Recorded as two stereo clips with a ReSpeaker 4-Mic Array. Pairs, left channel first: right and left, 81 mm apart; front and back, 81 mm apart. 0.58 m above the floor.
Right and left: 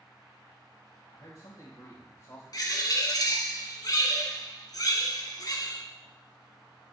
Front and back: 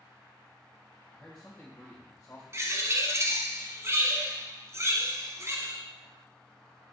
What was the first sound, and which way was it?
A man speaking, 85° right.